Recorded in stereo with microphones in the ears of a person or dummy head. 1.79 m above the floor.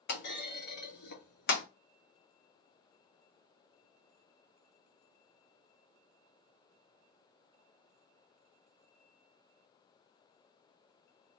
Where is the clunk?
50° left (ahead or behind), 0.7 m.